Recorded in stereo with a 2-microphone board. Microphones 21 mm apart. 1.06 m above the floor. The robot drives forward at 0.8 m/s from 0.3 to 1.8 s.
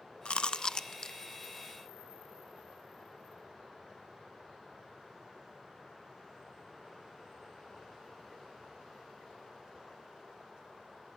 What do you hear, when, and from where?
0.2 s chewing: 55° left (ahead or behind), 0.8 m; by 1.2 s 30° left (ahead or behind), 1.3 m